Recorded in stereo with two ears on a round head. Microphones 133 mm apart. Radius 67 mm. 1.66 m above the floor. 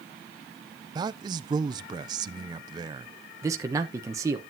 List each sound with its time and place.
0.9 s a man speaking: 30° right (ahead or behind), 0.5 m
3.4 s a man speaking: 20° right (ahead or behind), 1.0 m